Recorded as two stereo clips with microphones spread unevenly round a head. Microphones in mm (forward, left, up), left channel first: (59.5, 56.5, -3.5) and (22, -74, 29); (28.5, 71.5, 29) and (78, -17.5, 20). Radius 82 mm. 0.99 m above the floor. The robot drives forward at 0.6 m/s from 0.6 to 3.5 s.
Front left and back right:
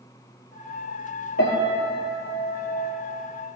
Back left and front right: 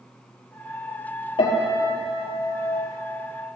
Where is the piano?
80° left, 4 m; by 2.9 s 95° left, 4 m.